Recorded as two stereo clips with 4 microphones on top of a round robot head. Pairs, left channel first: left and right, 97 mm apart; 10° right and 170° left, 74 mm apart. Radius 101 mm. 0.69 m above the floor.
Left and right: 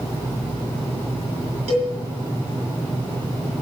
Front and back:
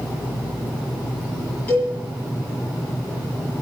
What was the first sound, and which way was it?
A cowbell, 85° right.